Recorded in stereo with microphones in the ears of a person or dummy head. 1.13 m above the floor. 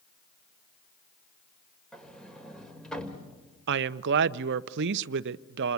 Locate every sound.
1.9 s a sliding door: centre (ahead or behind), 2.0 m
3.7 s a woman speaking: 60° right (ahead or behind), 0.7 m